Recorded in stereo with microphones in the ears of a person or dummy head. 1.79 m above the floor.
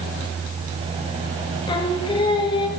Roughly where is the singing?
Left.